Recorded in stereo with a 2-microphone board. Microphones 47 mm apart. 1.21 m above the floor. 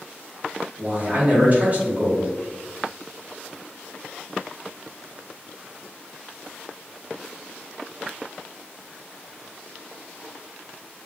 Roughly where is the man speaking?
Right.